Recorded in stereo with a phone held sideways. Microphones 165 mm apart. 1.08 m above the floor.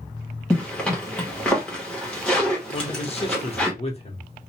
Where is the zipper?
5° left (ahead or behind), 1.2 m.